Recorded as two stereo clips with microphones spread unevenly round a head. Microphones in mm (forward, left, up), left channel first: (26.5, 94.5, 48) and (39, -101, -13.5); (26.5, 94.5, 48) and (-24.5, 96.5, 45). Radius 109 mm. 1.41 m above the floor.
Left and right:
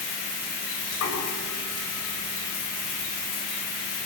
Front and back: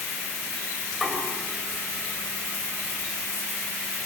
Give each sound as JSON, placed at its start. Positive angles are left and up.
{"t": 0.9, "sound": "knocking", "azimuth_deg": 90, "distance_m": 6.5}